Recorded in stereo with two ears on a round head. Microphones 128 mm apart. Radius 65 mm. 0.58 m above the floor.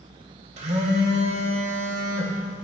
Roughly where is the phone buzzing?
Right.